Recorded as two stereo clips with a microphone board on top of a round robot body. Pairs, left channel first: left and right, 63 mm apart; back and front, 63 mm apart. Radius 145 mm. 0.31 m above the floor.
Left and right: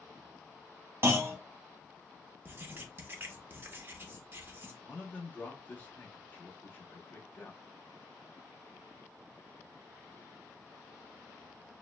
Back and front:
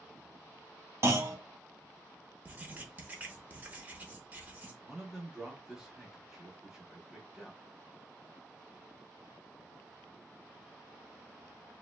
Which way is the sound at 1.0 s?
40° right.